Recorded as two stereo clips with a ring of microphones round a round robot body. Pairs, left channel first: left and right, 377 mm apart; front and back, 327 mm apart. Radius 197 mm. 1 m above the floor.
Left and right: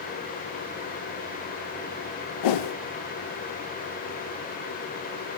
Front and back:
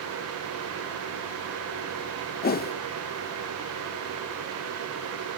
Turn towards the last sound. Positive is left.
turn(degrees=65)